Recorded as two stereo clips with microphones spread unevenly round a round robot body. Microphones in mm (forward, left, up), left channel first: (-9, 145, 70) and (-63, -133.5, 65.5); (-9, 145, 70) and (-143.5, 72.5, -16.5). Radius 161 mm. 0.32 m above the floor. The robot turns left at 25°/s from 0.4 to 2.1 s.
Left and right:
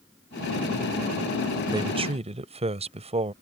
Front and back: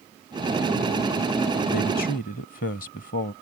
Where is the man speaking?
25° right; by 3.3 s 35° right.